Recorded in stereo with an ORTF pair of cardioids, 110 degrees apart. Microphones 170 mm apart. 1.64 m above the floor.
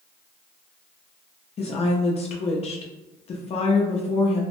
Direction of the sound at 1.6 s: 35° left.